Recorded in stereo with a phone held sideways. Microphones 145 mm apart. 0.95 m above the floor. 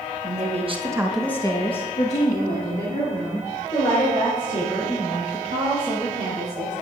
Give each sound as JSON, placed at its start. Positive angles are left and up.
{"t": 0.2, "sound": "a woman speaking", "side_deg": -60, "distance_m": 1.4}